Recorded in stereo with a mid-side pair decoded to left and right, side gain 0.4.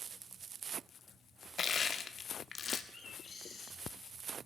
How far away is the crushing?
About 1.4 m.